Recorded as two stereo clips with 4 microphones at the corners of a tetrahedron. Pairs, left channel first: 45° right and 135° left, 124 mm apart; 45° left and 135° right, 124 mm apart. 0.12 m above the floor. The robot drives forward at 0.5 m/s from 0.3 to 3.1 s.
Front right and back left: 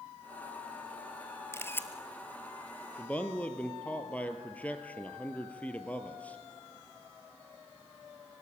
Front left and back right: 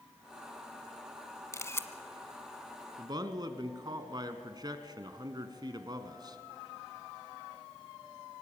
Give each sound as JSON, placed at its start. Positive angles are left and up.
{"t": 1.5, "sound": "a camera shutter", "azimuth_deg": 0, "distance_m": 1.2}
{"t": 3.0, "sound": "a man speaking", "azimuth_deg": -110, "distance_m": 1.3}